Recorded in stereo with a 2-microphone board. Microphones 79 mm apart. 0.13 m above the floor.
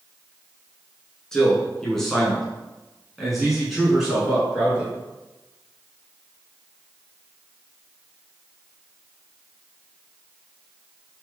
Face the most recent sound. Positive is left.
turn(degrees=-10)  # may be behind; listen again after turning